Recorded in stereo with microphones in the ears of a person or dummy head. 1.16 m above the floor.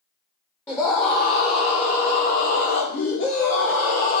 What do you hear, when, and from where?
0.7 s a scream: 15° left (ahead or behind), 0.8 m; by 4.2 s 70° left (ahead or behind), 2 m